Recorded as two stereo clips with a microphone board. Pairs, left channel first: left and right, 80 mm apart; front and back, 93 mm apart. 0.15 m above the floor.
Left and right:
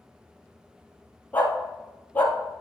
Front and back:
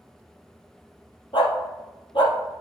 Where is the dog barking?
20° left, 1.8 m.